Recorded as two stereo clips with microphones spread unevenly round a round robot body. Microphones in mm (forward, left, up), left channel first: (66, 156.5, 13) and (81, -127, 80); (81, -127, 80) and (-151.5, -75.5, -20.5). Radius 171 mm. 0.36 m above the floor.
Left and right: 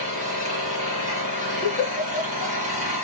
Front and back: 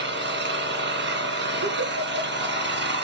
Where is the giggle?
170° left, 7 m.